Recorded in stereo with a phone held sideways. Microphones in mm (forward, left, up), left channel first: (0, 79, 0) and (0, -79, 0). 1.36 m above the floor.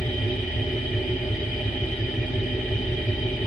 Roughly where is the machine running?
Left.